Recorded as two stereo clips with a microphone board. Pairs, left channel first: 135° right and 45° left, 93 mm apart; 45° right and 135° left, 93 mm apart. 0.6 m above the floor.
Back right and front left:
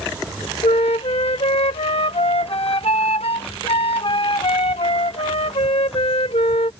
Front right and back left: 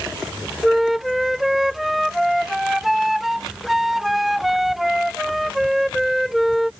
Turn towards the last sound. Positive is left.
turn(degrees=-140)